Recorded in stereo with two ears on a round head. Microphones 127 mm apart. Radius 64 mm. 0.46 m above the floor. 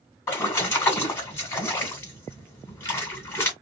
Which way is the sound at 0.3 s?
20° left (ahead or behind).